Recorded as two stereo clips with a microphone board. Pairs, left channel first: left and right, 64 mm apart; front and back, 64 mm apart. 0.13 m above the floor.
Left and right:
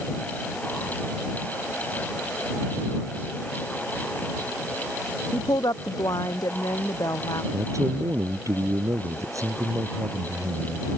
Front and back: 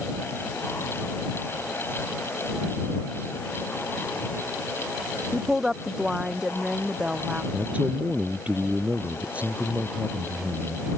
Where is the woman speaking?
95° left; by 7.4 s 105° left.